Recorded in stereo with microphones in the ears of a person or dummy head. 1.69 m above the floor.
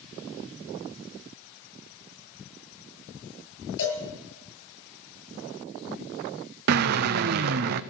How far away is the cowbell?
About 9 m.